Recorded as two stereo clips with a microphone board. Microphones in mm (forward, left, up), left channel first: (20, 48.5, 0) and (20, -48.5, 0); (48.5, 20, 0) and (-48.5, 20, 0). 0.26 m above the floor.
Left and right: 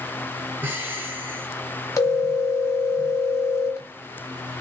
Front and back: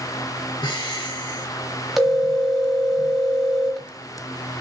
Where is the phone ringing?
90° left, 0.8 m.